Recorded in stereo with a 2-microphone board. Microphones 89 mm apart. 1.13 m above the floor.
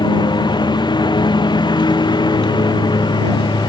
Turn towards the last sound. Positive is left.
turn(degrees=50)  # may be behind; listen again after turning